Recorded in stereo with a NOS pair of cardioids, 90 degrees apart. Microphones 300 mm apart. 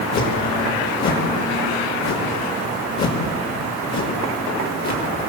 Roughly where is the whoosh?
Ahead left.